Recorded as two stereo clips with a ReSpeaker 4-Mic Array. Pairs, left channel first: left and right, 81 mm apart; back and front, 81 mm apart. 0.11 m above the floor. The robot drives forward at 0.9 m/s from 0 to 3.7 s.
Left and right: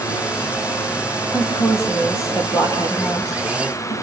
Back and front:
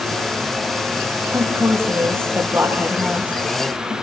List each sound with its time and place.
1.3 s a woman speaking: 40° left, 3.5 m; by 3.9 s 80° left, 2.5 m